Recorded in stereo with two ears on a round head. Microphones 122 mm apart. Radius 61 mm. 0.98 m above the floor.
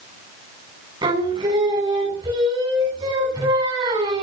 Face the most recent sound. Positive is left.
turn(degrees=-30)  # may be behind; listen again after turning